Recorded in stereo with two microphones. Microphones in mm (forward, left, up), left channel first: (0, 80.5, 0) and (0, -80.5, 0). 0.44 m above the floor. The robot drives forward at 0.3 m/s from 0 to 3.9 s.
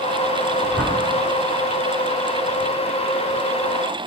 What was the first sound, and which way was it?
A whoosh, centre (ahead or behind).